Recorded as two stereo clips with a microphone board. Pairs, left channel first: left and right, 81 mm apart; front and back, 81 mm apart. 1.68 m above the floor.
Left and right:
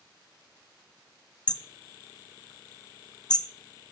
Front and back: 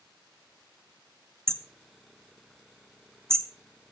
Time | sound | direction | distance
1.5 | hammering | 125° left | 0.9 m